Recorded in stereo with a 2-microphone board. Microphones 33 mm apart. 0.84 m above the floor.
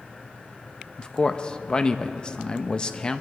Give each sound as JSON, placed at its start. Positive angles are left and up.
{"t": 1.0, "sound": "a man speaking", "side_deg": 30, "distance_m": 0.6}